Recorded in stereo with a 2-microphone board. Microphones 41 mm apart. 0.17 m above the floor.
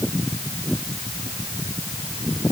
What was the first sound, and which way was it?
Only background noise.